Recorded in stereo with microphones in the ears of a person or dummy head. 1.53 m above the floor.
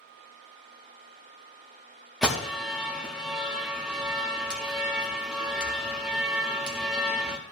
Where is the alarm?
5° right (ahead or behind), 0.9 m.